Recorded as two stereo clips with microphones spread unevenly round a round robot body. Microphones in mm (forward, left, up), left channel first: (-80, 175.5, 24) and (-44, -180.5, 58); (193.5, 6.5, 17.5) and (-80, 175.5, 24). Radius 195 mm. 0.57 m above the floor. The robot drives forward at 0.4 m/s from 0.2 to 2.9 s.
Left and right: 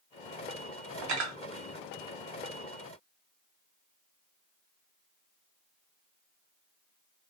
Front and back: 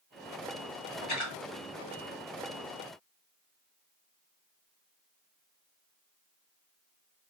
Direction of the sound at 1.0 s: 95° right.